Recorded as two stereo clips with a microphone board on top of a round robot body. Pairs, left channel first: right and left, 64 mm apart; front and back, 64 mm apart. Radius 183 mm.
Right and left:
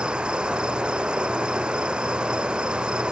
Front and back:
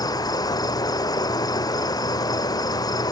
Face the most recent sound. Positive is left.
turn(degrees=15)